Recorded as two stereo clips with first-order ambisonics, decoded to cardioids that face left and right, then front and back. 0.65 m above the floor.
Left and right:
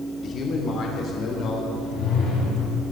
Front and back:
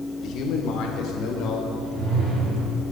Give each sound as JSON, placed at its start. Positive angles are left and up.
{"t": 0.2, "sound": "a man speaking", "azimuth_deg": 35, "distance_m": 1.8}
{"t": 1.8, "sound": "a whoosh", "azimuth_deg": 130, "distance_m": 4.5}